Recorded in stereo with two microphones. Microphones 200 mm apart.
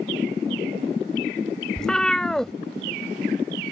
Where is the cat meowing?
5° left (ahead or behind).